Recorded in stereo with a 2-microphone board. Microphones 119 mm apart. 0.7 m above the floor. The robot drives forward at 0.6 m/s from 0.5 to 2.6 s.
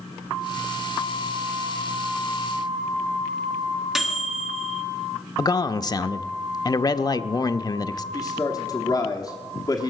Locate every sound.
4.0 s a microwave: 5° right (ahead or behind), 1.5 m
5.4 s a man speaking: 35° left (ahead or behind), 0.5 m
8.1 s a man speaking: 35° left (ahead or behind), 1.2 m